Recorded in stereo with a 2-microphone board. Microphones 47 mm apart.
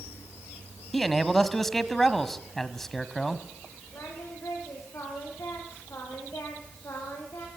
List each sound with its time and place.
0.9 s a man speaking: 5° left (ahead or behind), 1.6 m
3.9 s singing: 75° left (ahead or behind), 9 m